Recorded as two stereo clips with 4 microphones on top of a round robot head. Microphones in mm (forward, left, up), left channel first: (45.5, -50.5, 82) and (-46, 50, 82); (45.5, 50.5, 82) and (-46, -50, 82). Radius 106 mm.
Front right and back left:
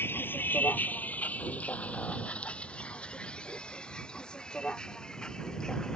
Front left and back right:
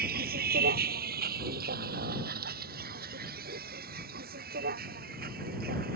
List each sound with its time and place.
0.0 s a vehicle: 125° right; by 6.0 s 135° right